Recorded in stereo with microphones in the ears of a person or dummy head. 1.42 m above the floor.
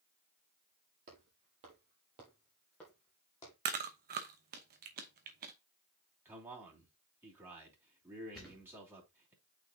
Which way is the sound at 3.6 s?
45° right (ahead or behind).